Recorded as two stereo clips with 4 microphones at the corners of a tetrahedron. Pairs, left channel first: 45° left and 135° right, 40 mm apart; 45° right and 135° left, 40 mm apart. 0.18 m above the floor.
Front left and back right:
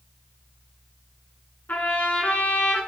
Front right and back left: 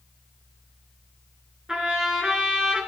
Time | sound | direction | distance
1.7 | a trumpet | 65° left | 2.5 m